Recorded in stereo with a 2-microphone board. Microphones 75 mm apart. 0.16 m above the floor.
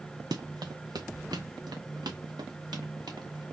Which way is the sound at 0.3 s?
65° right (ahead or behind).